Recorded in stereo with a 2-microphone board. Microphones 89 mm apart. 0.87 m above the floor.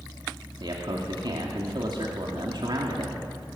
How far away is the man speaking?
About 2.5 m.